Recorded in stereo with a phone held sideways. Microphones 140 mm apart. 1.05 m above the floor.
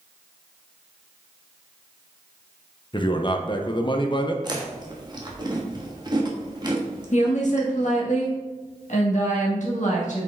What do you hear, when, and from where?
2.9 s a man speaking: 35° left (ahead or behind), 0.9 m
4.4 s chewing: 30° right (ahead or behind), 1.4 m
7.1 s a woman speaking: 60° left (ahead or behind), 1.6 m